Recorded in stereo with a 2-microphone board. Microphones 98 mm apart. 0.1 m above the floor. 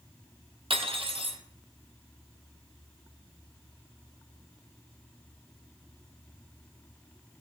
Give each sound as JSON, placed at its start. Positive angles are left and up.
{"t": 0.7, "sound": "cutlery clinking", "side_deg": -65, "distance_m": 1.9}